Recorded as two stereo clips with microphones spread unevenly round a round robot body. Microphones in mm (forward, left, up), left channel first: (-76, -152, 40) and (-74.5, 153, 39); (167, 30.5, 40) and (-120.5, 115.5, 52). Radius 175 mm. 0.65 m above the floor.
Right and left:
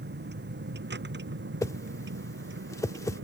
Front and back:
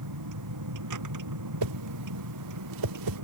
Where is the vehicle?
145° left; by 3.2 s 140° left.